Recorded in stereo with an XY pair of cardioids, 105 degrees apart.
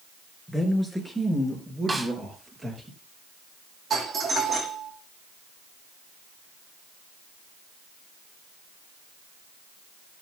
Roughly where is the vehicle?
I don't hear a vehicle.